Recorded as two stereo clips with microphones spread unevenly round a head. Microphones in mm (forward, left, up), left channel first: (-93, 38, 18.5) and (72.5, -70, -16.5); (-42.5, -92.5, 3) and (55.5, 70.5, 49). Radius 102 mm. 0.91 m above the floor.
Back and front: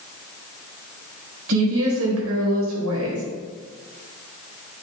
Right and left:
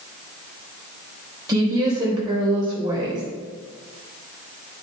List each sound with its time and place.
1.5 s a woman speaking: 15° right, 3.5 m